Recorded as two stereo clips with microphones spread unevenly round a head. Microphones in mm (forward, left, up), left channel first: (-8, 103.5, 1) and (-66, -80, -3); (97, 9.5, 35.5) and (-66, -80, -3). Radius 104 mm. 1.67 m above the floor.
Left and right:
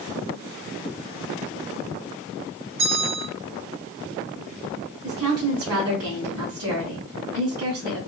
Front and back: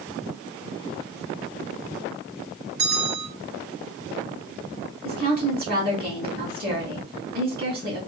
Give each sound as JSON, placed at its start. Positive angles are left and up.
{"t": 2.8, "sound": "a bell", "azimuth_deg": -135, "distance_m": 2.0}
{"t": 5.0, "sound": "a woman speaking", "azimuth_deg": -105, "distance_m": 2.0}